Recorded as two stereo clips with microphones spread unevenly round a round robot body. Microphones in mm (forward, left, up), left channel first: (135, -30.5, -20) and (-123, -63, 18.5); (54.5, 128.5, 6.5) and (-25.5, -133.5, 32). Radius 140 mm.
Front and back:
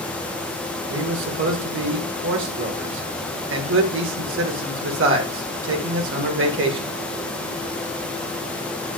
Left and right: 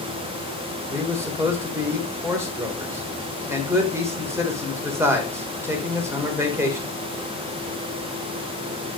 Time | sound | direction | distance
0.9 | a man speaking | 170° left | 1.7 m